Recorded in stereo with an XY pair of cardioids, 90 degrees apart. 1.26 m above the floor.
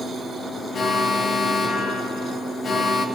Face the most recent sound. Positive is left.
turn(degrees=55)